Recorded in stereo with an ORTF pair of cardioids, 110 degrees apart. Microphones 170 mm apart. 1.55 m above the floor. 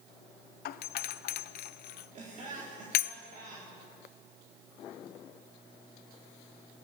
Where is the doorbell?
65° left, 0.8 m.